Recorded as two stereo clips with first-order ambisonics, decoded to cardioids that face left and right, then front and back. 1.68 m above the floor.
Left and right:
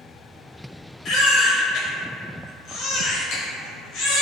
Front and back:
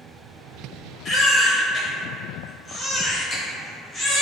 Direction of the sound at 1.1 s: 65° left.